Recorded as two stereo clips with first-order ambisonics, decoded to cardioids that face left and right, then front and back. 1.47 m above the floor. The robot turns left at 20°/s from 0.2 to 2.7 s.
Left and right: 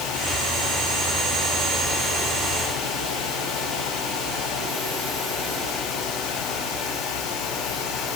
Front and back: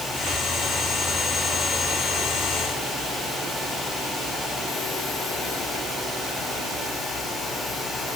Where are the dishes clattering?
No dishes clattering in this recording.